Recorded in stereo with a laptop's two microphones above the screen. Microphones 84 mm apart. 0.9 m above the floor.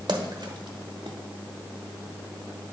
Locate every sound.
0.1 s a splash: 65° right (ahead or behind), 1.1 m